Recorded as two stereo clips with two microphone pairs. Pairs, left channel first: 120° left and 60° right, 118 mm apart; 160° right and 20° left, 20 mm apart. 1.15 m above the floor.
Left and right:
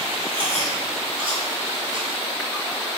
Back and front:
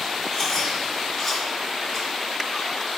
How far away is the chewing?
About 1.0 m.